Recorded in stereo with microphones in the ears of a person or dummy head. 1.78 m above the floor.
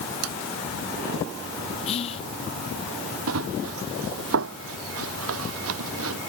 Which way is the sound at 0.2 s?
85° right.